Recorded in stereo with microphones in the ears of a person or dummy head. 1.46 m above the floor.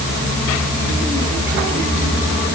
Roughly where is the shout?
No shout in this recording.